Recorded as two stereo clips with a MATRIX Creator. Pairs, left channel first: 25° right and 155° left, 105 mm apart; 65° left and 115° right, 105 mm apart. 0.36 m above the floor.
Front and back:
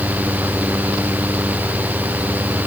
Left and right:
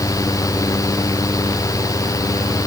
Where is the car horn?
No car horn in this recording.